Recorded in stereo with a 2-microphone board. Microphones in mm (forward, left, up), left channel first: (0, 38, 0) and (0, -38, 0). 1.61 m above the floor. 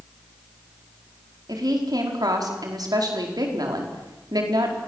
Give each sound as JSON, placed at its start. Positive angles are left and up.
{"t": 1.5, "sound": "a woman speaking", "side_deg": -60, "distance_m": 4.5}